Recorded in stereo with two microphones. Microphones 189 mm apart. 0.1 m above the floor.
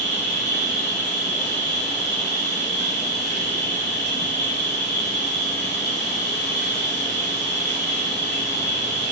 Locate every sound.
0.0 s an insect: 65° left (ahead or behind), 1.4 m